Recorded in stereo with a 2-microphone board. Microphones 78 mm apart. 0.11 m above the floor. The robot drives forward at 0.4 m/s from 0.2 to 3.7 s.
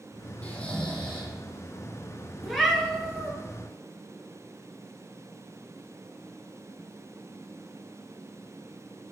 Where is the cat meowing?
Centre (ahead or behind), 0.6 m.